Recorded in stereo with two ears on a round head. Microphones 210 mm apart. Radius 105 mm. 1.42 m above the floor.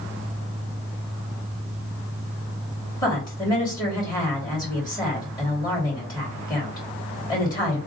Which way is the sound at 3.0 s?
15° left (ahead or behind).